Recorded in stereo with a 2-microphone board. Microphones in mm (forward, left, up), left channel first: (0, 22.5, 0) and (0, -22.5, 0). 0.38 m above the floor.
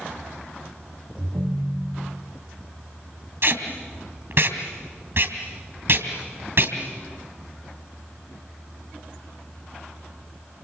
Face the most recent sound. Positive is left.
turn(degrees=-55)  # may be behind; listen again after turning